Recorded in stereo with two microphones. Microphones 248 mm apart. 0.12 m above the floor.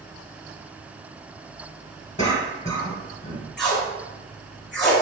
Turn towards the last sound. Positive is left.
turn(degrees=5)  # may be behind; listen again after turning